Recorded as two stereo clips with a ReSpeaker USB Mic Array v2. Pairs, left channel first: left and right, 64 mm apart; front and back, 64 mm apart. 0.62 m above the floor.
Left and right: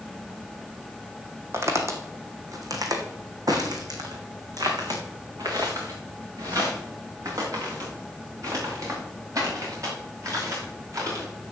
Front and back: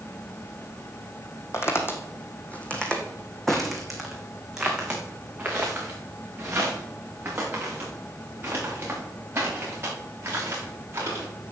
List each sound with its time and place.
1.5 s footsteps: 45° right, 1.9 m; by 11.2 s 130° right, 7 m